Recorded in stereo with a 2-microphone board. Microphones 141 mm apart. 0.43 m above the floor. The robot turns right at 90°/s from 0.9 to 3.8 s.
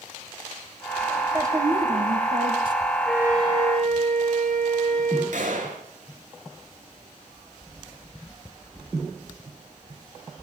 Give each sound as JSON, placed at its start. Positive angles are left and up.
{"t": 1.3, "sound": "a woman speaking", "azimuth_deg": -160, "distance_m": 2.5}
{"t": 3.0, "sound": "a flute", "azimuth_deg": 175, "distance_m": 7.0}
{"t": 5.3, "sound": "a gunshot", "side_deg": -70, "distance_m": 4.5}